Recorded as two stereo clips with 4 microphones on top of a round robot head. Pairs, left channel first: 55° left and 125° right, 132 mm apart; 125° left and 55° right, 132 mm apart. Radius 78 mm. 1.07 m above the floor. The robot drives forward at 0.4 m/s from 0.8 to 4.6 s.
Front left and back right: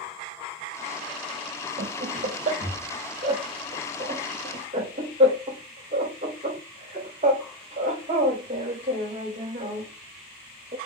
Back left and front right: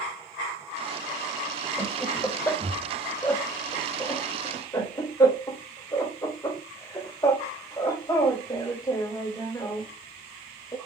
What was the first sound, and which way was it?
Laughter, 150° right.